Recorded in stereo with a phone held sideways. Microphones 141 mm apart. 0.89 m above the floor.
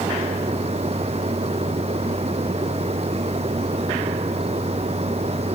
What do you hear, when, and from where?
0.0 s a machine running: 45° right (ahead or behind)